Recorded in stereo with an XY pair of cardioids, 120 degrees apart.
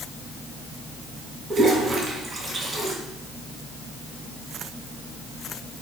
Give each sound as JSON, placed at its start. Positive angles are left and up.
{"t": 1.5, "sound": "a toilet flushing", "azimuth_deg": -40, "distance_m": 3.0}